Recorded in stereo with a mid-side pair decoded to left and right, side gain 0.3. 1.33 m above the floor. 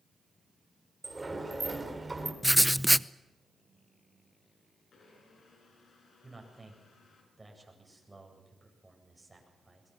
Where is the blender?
65° left, 7 m.